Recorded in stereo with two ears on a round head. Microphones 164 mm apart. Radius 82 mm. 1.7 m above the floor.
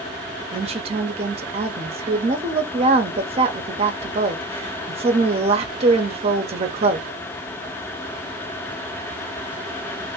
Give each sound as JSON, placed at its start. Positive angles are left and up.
{"t": 0.5, "sound": "a woman speaking", "side_deg": -35, "distance_m": 0.7}